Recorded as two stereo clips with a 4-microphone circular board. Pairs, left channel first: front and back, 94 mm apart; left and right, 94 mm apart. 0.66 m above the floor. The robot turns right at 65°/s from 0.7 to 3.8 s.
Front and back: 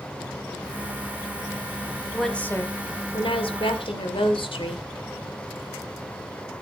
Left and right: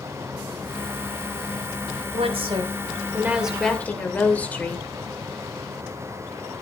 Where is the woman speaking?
95° right, 2.5 m; by 4.8 s 15° left, 2.5 m.